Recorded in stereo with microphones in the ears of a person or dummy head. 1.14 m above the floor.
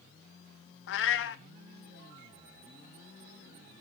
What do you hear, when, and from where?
0.9 s a cat meowing: 65° left (ahead or behind), 0.8 m